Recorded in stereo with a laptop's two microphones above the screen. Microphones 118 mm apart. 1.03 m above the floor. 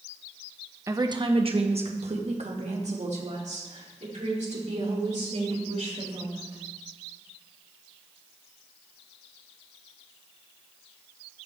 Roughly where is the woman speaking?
Right.